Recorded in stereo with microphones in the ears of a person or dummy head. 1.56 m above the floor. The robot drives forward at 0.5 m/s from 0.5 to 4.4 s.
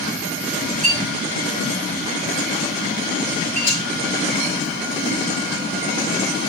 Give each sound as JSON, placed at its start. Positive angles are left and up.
{"t": 0.8, "sound": "a clink", "side_deg": -45, "distance_m": 3.5}
{"t": 3.7, "sound": "frying", "side_deg": -10, "distance_m": 5.5}